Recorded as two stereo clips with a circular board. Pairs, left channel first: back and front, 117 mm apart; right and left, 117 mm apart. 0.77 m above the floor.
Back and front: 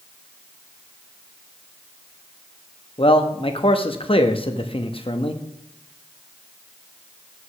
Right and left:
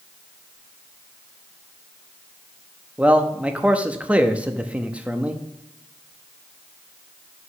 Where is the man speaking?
165° left, 0.8 m.